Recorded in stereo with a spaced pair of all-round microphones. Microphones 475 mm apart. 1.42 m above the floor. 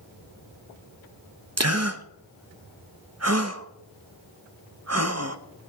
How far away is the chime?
No chime in this recording.